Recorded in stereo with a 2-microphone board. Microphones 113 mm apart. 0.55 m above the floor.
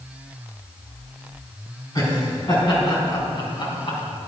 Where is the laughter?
35° left (ahead or behind), 4.5 m; by 4.0 s 50° left (ahead or behind), 4 m.